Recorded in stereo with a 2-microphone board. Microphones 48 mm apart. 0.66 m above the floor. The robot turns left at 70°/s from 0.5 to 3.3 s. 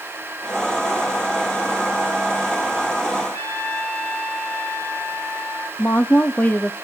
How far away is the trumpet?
About 6 m.